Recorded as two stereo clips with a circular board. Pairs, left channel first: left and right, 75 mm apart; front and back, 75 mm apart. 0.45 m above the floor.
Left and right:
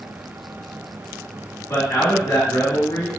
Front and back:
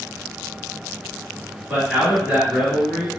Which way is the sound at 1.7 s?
95° left.